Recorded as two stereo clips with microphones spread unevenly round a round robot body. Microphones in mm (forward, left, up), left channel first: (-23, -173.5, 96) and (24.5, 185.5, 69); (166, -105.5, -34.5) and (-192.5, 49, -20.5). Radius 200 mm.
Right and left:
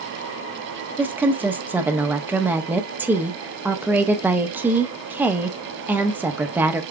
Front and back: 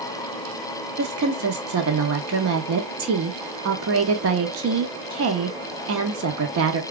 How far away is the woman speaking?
About 0.9 m.